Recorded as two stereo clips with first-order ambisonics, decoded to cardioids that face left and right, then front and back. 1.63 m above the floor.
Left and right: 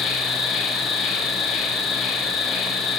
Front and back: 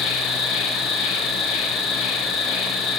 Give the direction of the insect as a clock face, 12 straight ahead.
11 o'clock.